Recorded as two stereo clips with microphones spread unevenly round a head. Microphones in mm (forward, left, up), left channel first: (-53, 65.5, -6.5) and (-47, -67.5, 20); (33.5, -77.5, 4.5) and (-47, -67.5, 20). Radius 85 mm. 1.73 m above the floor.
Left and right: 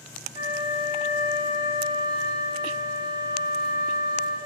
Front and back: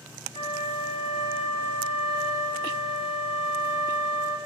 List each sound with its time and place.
0.3 s a flute: 20° right, 10 m